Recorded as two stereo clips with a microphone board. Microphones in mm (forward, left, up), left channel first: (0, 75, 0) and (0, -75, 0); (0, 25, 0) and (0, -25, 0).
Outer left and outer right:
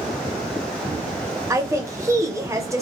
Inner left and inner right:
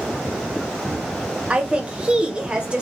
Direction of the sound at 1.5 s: 20° right (ahead or behind).